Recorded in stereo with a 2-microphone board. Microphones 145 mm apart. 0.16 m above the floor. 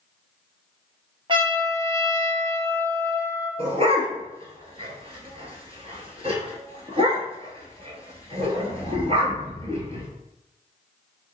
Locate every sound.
1.3 s a trumpet: 35° right (ahead or behind), 1.2 m
3.6 s a dog barking: 45° right (ahead or behind), 1.3 m